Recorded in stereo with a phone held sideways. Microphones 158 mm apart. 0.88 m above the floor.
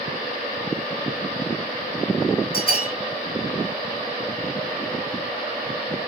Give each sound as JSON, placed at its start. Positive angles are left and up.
{"t": 2.5, "sound": "a bell", "side_deg": -65, "distance_m": 1.5}